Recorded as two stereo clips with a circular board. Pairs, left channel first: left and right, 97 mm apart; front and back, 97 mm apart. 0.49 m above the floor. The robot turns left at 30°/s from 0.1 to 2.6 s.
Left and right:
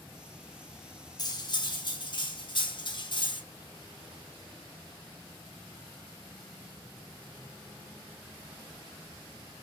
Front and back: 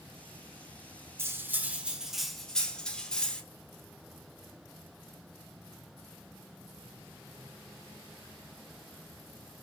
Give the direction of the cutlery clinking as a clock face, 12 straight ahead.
8 o'clock.